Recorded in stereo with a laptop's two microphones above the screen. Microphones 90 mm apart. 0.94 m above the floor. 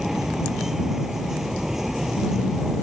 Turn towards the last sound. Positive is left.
turn(degrees=-5)  # may be behind; listen again after turning